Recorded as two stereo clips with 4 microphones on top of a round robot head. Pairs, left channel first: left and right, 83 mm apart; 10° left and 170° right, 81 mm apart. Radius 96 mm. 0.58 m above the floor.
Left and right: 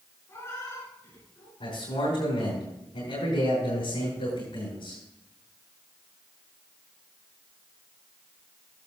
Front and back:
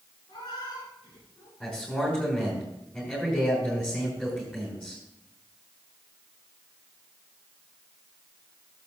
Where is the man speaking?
85° left, 5.5 m.